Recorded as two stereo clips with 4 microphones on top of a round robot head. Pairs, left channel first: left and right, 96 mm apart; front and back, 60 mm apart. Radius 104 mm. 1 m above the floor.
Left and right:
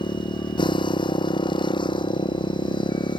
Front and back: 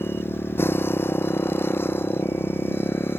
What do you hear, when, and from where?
0.0 s a motorcycle: 55° left